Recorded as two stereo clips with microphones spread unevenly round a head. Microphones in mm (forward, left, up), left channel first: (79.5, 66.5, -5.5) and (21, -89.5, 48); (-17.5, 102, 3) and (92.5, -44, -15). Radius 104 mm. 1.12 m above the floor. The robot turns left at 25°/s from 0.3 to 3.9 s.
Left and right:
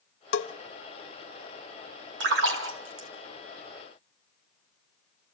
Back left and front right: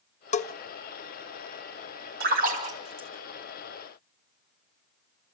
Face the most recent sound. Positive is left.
turn(degrees=-135)